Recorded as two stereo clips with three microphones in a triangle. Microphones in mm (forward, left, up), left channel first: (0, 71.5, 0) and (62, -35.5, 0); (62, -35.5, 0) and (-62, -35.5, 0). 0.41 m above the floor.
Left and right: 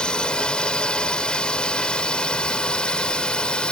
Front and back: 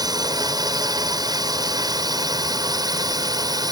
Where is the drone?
165° right.